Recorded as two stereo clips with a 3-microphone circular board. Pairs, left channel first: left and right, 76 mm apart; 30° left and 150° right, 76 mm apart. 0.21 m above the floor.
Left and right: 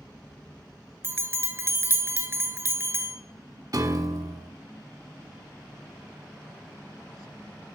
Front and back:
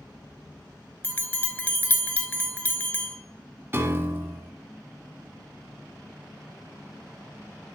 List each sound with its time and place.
1.0 s a bell: 35° right, 0.9 m
3.7 s a piano: 100° right, 1.1 m